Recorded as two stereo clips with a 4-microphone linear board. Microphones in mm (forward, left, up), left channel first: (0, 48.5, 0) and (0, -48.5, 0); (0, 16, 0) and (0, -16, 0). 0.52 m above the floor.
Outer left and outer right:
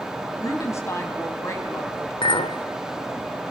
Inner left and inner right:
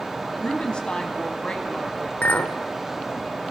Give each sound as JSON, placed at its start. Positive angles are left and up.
{"t": 0.4, "sound": "a woman speaking", "side_deg": 30, "distance_m": 4.0}
{"t": 2.2, "sound": "a clink", "side_deg": 65, "distance_m": 1.1}